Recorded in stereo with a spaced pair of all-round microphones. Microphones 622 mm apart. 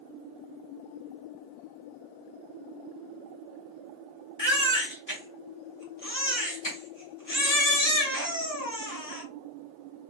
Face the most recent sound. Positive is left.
turn(degrees=30)  # may be behind; listen again after turning